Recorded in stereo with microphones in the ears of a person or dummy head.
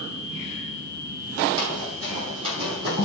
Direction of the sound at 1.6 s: 25° right (ahead or behind).